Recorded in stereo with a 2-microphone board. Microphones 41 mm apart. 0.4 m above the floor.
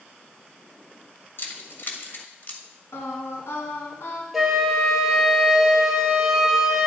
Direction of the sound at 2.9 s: 75° left (ahead or behind).